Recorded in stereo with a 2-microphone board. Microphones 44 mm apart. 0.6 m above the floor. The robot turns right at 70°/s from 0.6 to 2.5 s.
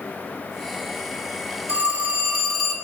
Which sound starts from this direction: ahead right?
A phone ringing, at 1.7 s.